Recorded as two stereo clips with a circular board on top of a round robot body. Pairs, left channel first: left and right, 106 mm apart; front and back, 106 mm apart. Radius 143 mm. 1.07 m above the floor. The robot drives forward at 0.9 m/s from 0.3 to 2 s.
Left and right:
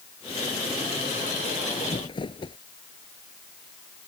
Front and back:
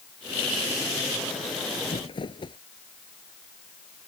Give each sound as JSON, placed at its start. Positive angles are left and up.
{"t": 1.8, "sound": "crumpling", "azimuth_deg": 45}